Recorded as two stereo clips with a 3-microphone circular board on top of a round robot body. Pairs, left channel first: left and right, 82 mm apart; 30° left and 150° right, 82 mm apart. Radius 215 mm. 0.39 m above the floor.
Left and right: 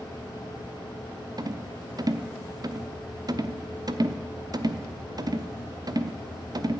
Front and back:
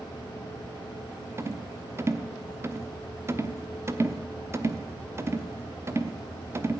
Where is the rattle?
100° right, 1.1 m.